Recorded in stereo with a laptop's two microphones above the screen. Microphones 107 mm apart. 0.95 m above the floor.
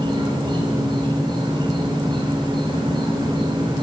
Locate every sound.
0.0 s an insect: 45° right (ahead or behind), 2.5 m